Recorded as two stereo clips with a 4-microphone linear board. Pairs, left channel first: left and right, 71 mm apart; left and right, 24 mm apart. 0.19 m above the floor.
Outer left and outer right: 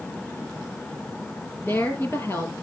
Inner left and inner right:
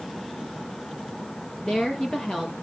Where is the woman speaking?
35° left (ahead or behind), 5.5 m.